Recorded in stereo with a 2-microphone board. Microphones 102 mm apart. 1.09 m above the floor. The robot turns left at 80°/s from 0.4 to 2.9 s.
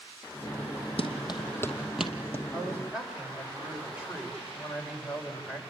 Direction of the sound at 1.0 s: 65° left (ahead or behind).